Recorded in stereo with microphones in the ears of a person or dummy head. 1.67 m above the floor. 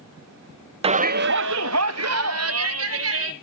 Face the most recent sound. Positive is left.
turn(degrees=-75)  # may be behind; listen again after turning